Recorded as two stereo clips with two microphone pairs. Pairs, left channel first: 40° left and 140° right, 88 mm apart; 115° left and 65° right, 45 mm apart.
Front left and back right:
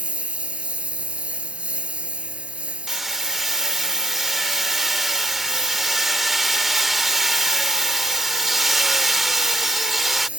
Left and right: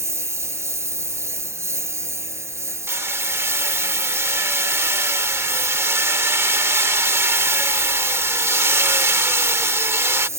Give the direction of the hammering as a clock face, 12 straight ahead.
2 o'clock.